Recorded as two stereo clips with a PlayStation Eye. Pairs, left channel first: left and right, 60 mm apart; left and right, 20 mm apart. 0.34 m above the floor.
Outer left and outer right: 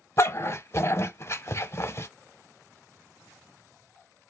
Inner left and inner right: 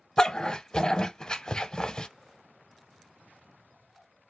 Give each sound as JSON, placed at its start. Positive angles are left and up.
{"t": 0.2, "sound": "a dog barking", "side_deg": 50, "distance_m": 0.5}